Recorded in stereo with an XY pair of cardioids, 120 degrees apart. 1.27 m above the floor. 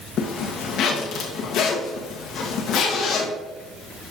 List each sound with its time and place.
0.2 s a zipper: 65° left, 1.5 m